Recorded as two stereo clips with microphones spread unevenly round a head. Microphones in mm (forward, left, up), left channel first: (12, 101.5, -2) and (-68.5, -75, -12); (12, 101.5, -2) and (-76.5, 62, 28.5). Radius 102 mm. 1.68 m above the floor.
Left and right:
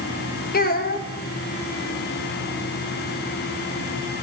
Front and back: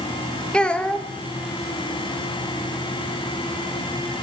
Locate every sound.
0.5 s a child speaking: 110° left, 2 m